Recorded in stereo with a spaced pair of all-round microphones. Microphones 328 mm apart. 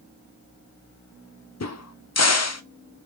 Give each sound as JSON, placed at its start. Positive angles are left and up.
{"t": 1.6, "sound": "a crack", "side_deg": 50, "distance_m": 0.5}